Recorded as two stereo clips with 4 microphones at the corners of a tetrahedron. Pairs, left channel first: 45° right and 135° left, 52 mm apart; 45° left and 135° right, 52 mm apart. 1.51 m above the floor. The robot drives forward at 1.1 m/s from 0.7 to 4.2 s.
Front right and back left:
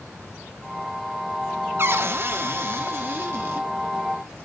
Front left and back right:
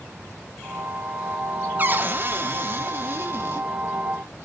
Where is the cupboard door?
175° left, 0.9 m; by 3.7 s straight behind, 3 m.